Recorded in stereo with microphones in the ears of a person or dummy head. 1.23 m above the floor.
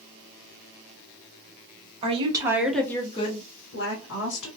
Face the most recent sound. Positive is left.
turn(degrees=70)  # may be behind; listen again after turning